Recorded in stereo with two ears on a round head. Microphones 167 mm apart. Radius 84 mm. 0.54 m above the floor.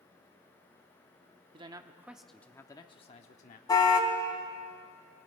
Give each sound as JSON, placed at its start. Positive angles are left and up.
{"t": 1.5, "sound": "a man speaking", "side_deg": -25, "distance_m": 0.9}
{"t": 3.7, "sound": "a car horn", "side_deg": 20, "distance_m": 2.5}